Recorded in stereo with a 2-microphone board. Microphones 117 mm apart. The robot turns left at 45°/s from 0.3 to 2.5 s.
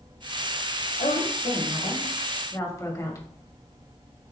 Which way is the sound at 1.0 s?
85° left.